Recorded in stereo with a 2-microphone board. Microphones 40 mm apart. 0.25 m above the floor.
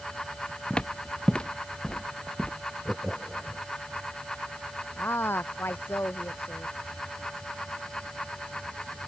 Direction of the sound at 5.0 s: 70° left (ahead or behind).